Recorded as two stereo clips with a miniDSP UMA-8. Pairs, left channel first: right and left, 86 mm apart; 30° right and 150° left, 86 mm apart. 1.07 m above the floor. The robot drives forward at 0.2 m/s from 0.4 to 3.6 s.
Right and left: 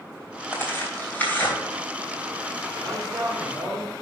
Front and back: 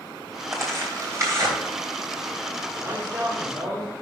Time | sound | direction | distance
0.5 | tearing paper | 155° right | 3 m
2.7 | a man speaking | 175° left | 3 m